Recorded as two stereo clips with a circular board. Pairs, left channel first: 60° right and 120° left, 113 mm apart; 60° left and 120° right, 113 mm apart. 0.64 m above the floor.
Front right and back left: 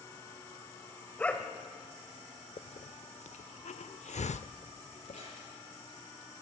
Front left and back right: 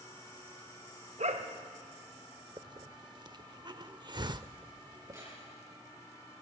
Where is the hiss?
70° right, 0.6 m.